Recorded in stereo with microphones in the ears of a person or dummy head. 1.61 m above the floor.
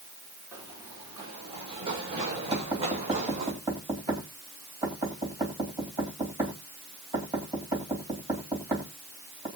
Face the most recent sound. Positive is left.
turn(degrees=-15)  # may be behind; listen again after turning